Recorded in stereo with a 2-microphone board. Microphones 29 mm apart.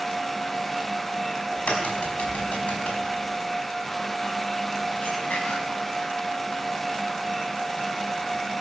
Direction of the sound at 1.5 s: 50° left (ahead or behind).